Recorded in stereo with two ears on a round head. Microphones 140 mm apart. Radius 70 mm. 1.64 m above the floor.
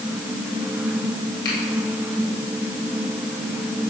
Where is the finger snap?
70° left (ahead or behind), 6.5 m.